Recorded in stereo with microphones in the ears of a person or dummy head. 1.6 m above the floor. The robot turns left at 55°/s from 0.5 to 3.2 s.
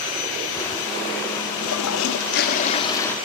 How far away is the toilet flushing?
About 1.0 m.